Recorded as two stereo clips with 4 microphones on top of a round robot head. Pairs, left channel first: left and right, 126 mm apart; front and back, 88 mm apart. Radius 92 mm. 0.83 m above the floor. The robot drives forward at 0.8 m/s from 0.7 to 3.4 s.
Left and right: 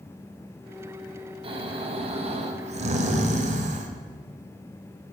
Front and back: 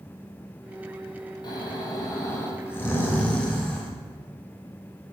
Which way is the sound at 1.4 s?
45° right.